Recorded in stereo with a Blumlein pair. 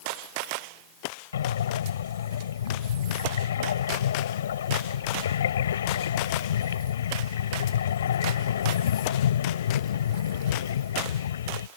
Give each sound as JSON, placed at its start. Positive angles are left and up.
{"t": 1.3, "sound": "breathing", "azimuth_deg": 65}